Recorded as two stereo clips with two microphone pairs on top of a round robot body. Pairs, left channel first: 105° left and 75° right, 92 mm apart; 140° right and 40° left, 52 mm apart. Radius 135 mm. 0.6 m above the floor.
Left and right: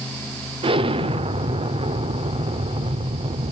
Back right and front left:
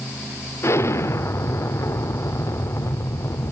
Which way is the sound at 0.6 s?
105° right.